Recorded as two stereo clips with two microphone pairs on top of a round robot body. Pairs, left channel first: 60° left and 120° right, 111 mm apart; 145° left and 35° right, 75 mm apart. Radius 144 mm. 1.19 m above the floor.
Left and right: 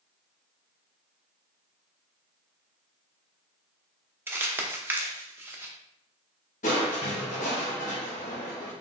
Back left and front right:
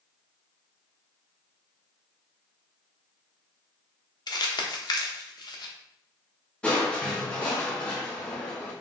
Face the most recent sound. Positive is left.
turn(degrees=65)